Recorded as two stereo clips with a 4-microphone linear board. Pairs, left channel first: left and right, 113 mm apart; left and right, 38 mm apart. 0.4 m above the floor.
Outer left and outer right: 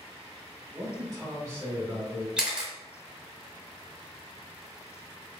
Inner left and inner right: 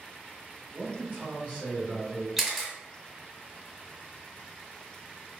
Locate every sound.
0.7 s a man speaking: 40° right (ahead or behind), 1.9 m; by 2.3 s 10° right (ahead or behind), 1.5 m
2.4 s a camera shutter: 10° right (ahead or behind), 0.6 m